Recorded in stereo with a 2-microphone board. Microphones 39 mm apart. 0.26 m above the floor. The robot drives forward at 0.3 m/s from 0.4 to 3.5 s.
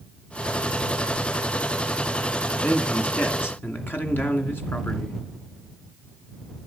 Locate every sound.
2.6 s a man speaking: 65° left (ahead or behind), 2.5 m